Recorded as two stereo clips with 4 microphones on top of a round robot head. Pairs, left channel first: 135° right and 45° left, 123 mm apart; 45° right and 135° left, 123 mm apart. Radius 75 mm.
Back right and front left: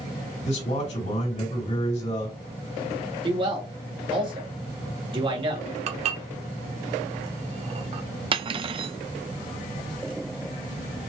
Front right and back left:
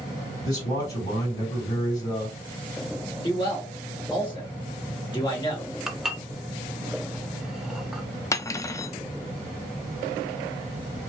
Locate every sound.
0.5 s a man speaking: 110° right, 3 m
3.2 s a man speaking: 5° left, 2 m
5.9 s dishes clattering: 50° left, 0.8 m
8.3 s cutlery clinking: 15° left, 0.5 m